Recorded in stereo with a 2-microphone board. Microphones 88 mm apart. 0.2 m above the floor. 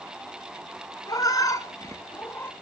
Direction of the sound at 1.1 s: 50° left (ahead or behind).